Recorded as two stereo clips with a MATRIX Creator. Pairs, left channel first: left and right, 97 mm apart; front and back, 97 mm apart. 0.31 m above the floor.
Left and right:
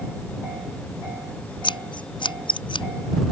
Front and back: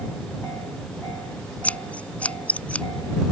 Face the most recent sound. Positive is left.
turn(degrees=75)